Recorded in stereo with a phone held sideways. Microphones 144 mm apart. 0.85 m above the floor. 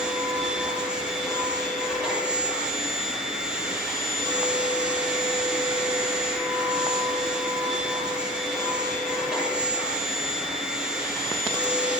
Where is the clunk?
I don't hear a clunk.